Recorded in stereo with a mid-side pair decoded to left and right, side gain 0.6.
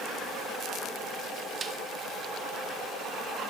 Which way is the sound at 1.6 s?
25° right.